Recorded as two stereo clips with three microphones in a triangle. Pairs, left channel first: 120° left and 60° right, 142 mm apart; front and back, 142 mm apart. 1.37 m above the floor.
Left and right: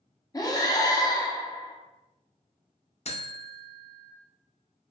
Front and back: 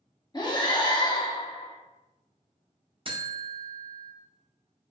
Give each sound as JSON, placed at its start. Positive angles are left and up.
{"t": 0.3, "sound": "breathing", "azimuth_deg": 55, "distance_m": 0.6}
{"t": 3.0, "sound": "a buzzer", "azimuth_deg": 140, "distance_m": 0.5}